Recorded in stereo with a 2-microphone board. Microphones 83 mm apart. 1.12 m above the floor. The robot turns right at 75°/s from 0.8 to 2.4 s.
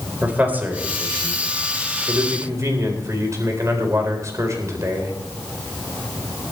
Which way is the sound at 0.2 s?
160° right.